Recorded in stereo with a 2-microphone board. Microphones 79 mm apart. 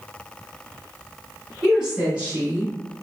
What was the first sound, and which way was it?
A woman speaking, 5° right (ahead or behind).